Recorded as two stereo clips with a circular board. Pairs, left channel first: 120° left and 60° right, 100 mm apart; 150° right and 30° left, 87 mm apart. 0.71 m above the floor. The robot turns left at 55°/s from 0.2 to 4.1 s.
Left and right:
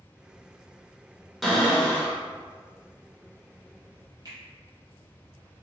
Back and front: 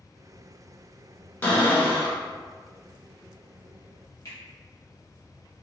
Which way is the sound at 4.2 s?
105° right.